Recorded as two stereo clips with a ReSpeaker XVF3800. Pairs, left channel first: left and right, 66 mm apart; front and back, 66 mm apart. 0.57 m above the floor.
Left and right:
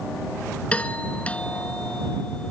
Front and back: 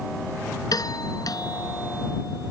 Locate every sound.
0.7 s a doorbell: 20° left